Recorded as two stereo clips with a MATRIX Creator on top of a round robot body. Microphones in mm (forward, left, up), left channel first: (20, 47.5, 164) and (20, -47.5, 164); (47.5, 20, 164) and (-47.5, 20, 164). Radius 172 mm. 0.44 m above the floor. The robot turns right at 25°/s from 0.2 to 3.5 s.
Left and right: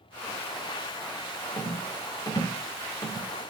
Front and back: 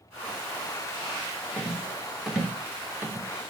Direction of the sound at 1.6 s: 80° left.